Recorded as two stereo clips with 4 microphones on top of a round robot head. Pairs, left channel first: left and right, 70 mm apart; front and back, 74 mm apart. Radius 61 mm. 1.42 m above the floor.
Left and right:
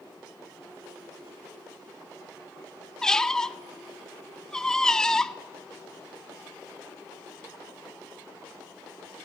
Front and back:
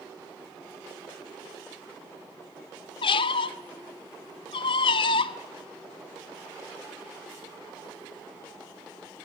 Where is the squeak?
10° left, 0.7 m.